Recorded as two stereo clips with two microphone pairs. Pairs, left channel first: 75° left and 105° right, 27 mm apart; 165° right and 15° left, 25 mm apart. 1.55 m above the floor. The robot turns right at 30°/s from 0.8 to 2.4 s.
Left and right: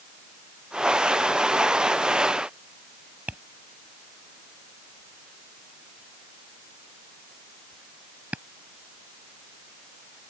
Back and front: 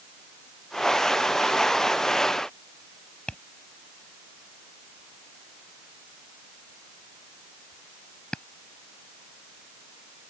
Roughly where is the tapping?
Behind right.